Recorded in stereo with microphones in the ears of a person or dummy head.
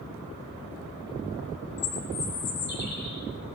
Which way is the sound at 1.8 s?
55° left (ahead or behind).